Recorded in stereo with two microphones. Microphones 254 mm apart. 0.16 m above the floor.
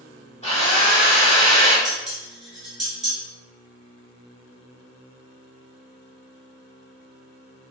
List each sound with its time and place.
0.4 s a drill: 25° left (ahead or behind), 1.6 m
1.9 s dishes clattering: 30° right (ahead or behind), 1.7 m